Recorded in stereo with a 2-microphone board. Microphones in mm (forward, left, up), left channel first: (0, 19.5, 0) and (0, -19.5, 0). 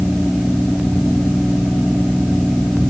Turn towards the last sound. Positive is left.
No sound to turn to.